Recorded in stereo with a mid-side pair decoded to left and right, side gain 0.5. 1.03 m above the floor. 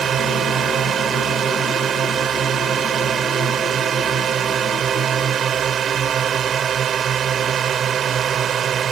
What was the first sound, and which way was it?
A drone, 50° right.